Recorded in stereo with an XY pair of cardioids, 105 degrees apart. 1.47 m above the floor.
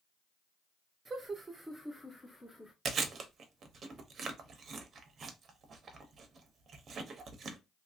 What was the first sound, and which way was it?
Laughter, 40° right.